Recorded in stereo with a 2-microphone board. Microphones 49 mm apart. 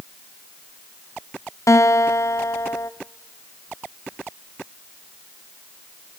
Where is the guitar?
80° left, 0.6 m.